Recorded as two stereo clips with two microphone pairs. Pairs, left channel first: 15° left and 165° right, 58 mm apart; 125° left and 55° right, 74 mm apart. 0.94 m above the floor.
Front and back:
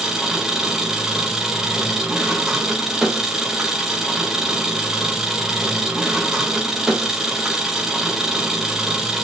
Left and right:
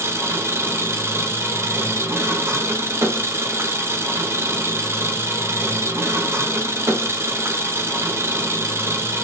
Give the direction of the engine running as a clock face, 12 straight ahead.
3 o'clock.